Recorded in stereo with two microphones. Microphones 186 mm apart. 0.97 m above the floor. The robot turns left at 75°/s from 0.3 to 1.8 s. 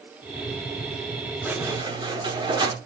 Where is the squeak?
5° right (ahead or behind), 0.7 m; by 2.8 s 25° right (ahead or behind), 0.7 m.